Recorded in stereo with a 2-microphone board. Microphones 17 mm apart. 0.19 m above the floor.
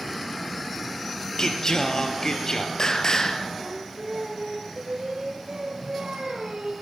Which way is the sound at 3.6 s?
70° right (ahead or behind).